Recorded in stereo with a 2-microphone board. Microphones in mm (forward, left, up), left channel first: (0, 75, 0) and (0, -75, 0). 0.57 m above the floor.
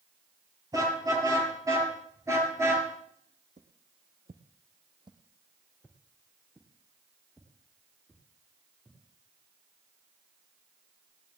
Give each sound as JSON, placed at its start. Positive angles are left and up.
{"t": 0.7, "sound": "a car horn", "side_deg": -25, "distance_m": 7.0}
{"t": 3.6, "sound": "footsteps", "side_deg": -60, "distance_m": 1.9}